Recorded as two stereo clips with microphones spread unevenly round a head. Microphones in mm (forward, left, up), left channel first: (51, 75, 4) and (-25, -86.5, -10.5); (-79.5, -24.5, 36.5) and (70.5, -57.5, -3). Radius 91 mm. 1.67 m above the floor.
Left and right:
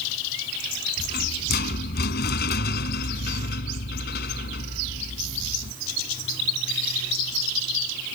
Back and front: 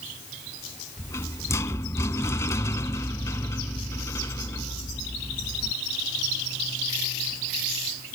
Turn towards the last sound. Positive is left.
turn(degrees=95)